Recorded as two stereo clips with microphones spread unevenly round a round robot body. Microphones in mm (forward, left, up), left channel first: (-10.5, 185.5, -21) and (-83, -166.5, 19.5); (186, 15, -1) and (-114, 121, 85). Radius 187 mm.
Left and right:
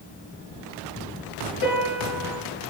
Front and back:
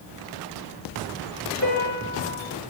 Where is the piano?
20° left, 7.5 m.